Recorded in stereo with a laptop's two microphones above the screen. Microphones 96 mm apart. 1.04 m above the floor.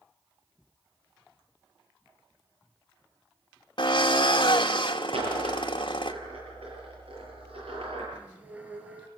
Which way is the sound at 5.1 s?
80° right.